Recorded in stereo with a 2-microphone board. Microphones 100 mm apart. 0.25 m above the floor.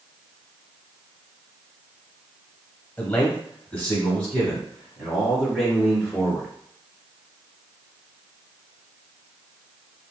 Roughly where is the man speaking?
Centre.